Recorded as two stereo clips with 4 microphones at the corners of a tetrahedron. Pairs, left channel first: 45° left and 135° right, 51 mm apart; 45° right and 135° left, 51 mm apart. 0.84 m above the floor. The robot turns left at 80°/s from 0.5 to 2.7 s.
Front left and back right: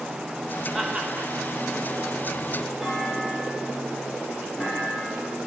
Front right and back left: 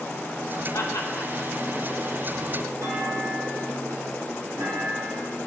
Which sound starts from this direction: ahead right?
Laughter, at 0.7 s.